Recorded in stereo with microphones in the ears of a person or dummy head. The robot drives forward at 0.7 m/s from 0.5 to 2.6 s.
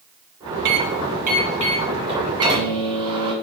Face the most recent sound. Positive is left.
turn(degrees=-25)  # may be behind; listen again after turning